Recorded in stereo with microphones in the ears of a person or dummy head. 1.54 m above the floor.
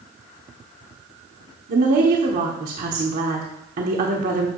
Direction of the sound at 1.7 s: 40° right (ahead or behind).